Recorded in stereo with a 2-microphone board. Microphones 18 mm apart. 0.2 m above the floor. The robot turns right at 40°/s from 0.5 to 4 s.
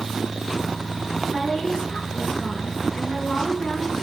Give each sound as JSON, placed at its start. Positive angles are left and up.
{"t": 1.3, "sound": "a woman speaking", "azimuth_deg": 25, "distance_m": 3.5}